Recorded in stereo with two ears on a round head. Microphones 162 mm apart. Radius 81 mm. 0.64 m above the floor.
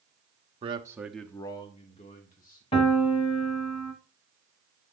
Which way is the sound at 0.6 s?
30° right (ahead or behind).